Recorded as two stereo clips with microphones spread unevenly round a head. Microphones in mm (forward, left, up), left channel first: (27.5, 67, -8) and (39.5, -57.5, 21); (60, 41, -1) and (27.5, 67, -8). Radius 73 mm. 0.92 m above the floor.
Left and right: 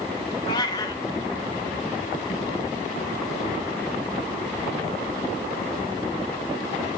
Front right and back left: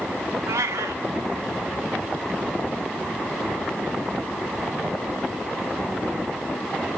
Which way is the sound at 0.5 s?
165° left.